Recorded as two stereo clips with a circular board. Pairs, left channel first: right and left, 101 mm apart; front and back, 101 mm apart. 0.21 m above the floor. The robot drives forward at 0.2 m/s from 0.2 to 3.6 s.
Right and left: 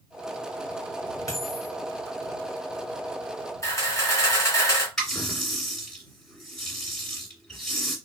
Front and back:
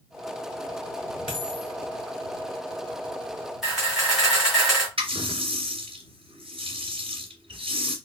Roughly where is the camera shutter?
Right.